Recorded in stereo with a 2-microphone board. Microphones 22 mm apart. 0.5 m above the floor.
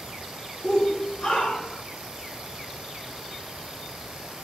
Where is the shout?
45° left (ahead or behind), 1.3 m; by 1.8 s 50° left (ahead or behind), 2 m.